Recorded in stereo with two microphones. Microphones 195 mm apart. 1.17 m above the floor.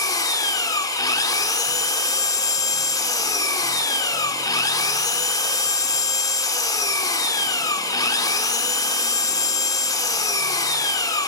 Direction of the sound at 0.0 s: 20° left (ahead or behind).